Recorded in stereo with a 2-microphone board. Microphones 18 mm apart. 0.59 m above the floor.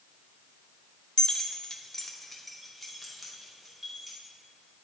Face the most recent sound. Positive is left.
turn(degrees=-5)  # may be behind; listen again after turning